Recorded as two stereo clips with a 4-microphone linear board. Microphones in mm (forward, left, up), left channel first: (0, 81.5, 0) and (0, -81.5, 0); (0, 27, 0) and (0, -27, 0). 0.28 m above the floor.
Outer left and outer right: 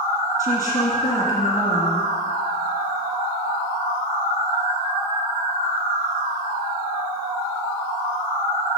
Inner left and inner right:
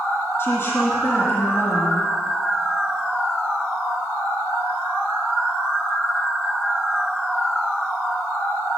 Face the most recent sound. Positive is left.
turn(degrees=50)  # may be behind; listen again after turning